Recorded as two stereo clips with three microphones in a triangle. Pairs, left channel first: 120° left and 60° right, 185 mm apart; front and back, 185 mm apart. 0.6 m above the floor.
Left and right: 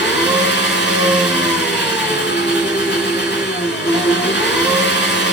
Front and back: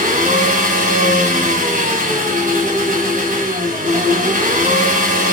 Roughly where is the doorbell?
No doorbell in this recording.